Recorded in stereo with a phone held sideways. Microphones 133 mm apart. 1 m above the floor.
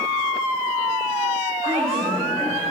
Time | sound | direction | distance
1.6 | a woman speaking | 60° right (ahead or behind) | 4 m